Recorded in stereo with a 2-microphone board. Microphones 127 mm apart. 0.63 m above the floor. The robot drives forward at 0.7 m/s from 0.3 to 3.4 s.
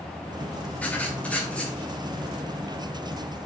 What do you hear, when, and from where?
0.8 s writing: 10° left (ahead or behind), 1.7 m